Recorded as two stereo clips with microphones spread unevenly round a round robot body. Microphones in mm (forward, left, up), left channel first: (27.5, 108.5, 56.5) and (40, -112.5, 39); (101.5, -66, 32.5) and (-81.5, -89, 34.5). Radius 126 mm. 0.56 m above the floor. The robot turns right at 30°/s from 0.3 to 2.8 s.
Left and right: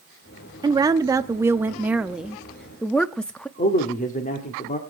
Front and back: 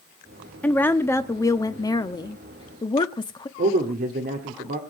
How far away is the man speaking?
About 1.6 m.